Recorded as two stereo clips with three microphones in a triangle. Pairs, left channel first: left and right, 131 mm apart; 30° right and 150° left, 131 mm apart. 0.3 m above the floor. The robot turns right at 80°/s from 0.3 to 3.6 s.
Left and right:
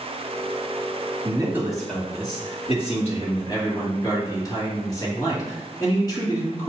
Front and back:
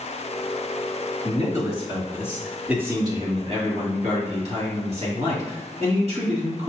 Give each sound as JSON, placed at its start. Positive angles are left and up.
{"t": 1.2, "sound": "a man speaking", "azimuth_deg": -45, "distance_m": 1.9}